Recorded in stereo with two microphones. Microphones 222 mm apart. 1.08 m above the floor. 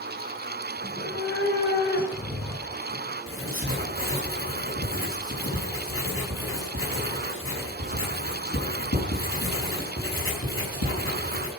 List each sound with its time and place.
0.8 s a cat meowing: 50° left (ahead or behind), 5 m; by 3.2 s 45° left (ahead or behind), 8.5 m
3.3 s writing: 75° left (ahead or behind), 4.5 m